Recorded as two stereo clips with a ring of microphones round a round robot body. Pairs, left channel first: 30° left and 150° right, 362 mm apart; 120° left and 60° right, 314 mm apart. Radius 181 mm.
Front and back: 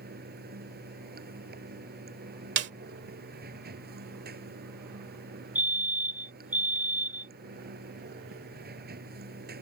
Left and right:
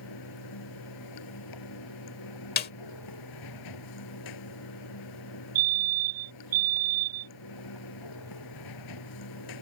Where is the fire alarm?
65° right.